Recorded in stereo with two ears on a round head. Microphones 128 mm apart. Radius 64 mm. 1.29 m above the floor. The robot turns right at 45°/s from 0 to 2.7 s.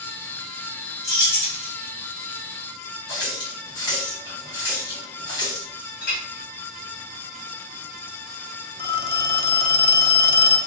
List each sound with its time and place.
1.0 s keys jangling: 20° left (ahead or behind), 1.4 m; by 1.7 s 50° left (ahead or behind), 1.4 m
3.1 s a running tap: 30° left (ahead or behind), 1.9 m
6.0 s a clink: 60° left (ahead or behind), 2.5 m
8.8 s a phone ringing: 40° left (ahead or behind), 0.6 m